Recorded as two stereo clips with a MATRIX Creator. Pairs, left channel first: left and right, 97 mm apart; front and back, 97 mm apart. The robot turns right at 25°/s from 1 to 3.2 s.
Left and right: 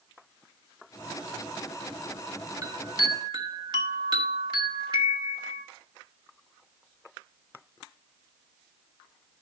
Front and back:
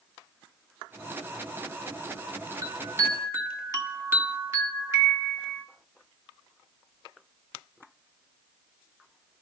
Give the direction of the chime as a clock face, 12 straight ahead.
4 o'clock.